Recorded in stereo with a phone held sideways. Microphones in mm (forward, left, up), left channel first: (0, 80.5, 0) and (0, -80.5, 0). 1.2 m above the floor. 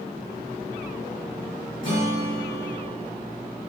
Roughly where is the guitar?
Left.